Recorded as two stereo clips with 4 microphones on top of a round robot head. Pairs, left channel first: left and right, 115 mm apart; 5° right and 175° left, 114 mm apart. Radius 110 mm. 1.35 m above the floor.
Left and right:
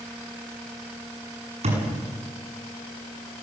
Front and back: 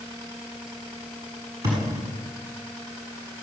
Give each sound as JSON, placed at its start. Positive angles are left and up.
{"t": 1.6, "sound": "a thud", "azimuth_deg": -115, "distance_m": 8.0}